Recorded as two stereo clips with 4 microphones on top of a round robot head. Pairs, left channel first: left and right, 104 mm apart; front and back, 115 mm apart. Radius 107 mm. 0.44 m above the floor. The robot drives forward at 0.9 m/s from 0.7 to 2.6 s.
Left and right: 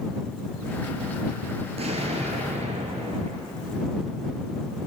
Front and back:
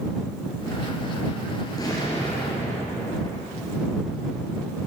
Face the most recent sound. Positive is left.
turn(degrees=-75)